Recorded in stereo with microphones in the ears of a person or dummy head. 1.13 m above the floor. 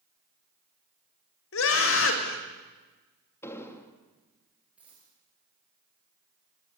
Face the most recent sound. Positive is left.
turn(degrees=-10)  # may be behind; listen again after turning